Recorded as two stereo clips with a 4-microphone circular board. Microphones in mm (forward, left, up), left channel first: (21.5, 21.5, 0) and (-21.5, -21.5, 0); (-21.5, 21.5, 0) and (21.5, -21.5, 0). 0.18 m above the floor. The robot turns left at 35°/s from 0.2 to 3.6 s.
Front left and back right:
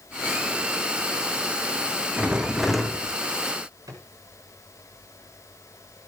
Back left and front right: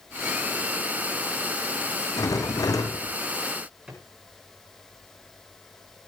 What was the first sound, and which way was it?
A rattle, 155° left.